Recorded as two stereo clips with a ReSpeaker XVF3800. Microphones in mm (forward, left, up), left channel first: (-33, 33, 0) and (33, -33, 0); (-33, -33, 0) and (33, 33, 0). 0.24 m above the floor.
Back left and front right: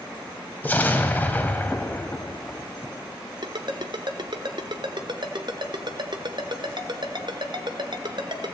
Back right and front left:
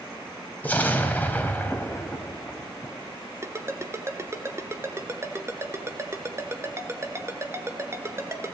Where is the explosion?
Straight behind, 1.3 m.